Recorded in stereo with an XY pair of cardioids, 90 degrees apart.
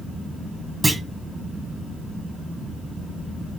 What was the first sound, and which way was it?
A clunk, 30° right.